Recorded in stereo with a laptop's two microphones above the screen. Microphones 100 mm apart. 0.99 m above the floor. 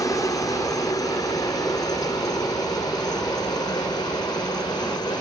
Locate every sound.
0.0 s a helicopter: 35° left (ahead or behind); by 5.2 s 45° left (ahead or behind)